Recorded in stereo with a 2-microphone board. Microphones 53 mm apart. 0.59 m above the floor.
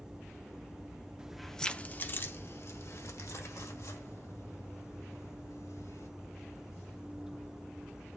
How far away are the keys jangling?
About 0.6 m.